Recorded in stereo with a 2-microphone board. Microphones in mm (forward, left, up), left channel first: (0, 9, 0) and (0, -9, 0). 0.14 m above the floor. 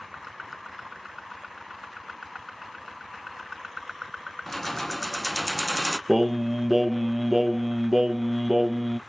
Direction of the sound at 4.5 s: 15° left (ahead or behind).